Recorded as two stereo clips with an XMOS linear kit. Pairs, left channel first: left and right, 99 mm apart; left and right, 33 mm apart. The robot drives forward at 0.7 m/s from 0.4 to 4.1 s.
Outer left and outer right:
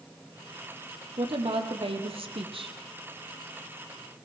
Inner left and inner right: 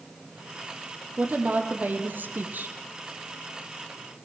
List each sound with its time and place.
1.2 s a woman speaking: 65° right (ahead or behind), 2.5 m